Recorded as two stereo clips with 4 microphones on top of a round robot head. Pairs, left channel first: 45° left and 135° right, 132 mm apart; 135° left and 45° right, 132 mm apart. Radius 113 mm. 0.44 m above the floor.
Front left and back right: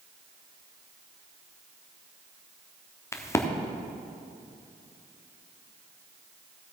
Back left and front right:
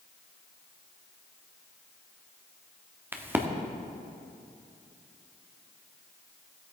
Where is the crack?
10° left, 1.1 m.